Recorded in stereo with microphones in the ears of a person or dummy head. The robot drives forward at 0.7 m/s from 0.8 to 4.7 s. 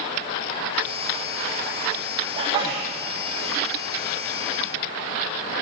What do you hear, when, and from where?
2.4 s a sneeze: 35° right (ahead or behind), 0.9 m; by 2.9 s 25° right (ahead or behind), 1.2 m